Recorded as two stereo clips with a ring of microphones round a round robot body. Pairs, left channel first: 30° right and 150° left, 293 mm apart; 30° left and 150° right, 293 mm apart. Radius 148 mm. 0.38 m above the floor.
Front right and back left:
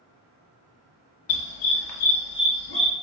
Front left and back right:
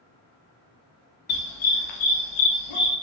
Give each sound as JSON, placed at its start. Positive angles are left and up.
{"t": 1.3, "sound": "a dog barking", "azimuth_deg": -30, "distance_m": 0.6}